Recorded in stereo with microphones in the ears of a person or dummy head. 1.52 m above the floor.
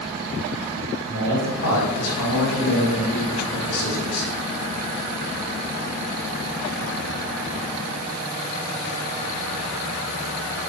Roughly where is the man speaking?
Left.